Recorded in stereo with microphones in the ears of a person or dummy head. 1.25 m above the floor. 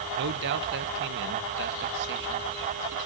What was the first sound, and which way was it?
A man speaking, 60° right (ahead or behind).